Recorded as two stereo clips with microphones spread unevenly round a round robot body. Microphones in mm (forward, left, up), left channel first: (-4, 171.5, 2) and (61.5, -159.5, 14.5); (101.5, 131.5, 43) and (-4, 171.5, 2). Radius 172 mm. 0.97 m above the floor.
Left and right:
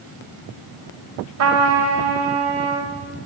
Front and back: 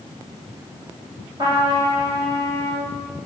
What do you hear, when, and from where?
1.4 s a trumpet: 120° right, 3 m